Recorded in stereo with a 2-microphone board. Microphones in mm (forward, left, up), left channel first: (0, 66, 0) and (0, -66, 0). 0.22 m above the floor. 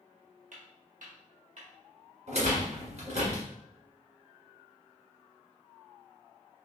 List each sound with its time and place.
0.5 s footsteps: 70° right (ahead or behind), 1.1 m
2.3 s a rattle: 60° right (ahead or behind), 1.4 m